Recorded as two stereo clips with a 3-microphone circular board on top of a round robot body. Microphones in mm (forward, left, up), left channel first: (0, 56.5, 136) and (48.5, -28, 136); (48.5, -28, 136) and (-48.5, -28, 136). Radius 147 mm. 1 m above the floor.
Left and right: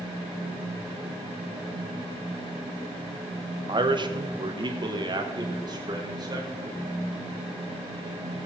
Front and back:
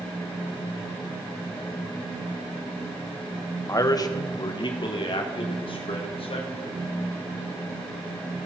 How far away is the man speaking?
About 1.1 m.